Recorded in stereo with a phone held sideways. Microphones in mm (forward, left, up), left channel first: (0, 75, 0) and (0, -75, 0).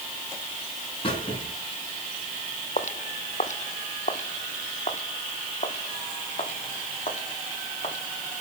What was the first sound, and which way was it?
A squeak, 35° left (ahead or behind).